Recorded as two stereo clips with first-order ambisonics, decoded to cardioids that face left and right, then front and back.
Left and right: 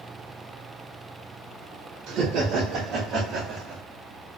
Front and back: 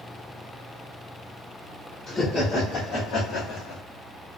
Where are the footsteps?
I don't hear footsteps.